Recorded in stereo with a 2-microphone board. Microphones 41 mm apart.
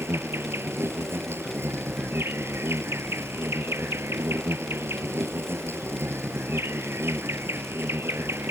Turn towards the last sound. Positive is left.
turn(degrees=-80)